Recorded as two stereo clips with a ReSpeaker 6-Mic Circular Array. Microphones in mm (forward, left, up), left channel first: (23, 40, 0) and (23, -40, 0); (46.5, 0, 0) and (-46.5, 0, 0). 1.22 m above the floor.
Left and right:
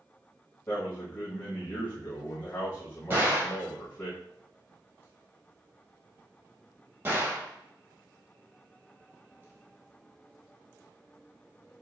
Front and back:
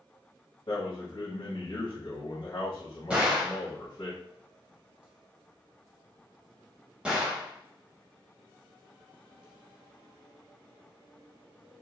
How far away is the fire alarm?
No fire alarm in this recording.